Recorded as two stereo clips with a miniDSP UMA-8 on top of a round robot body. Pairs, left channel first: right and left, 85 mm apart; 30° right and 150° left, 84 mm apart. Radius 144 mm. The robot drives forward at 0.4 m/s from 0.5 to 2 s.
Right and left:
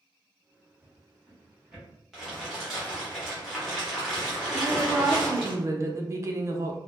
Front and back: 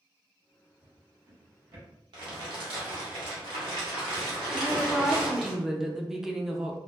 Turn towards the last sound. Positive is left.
turn(degrees=70)